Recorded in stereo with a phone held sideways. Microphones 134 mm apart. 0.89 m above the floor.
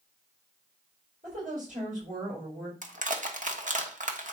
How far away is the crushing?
About 1.4 m.